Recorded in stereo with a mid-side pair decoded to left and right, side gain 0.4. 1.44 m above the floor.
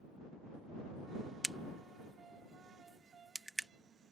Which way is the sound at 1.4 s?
10° right.